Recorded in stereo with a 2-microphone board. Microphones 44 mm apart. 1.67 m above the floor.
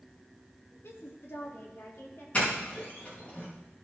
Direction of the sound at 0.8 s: 75° left (ahead or behind).